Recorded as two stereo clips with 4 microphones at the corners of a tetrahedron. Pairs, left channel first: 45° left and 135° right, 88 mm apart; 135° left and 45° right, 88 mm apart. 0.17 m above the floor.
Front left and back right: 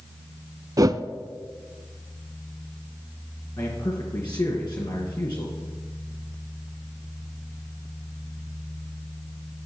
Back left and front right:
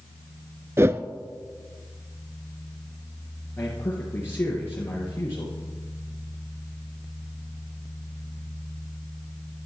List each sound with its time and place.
0.8 s a whoosh: 100° right, 0.5 m
3.6 s a man speaking: 75° left, 3 m